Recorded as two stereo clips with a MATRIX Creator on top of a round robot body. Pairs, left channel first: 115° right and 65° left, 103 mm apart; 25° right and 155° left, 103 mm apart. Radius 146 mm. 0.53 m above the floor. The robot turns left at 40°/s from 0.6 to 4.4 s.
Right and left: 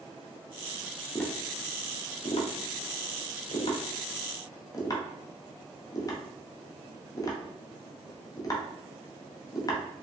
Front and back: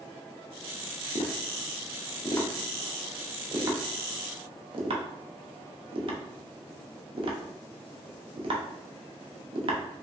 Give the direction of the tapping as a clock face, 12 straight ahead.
1 o'clock.